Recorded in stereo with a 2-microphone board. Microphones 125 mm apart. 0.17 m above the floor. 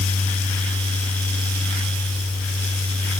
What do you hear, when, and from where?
Only background noise.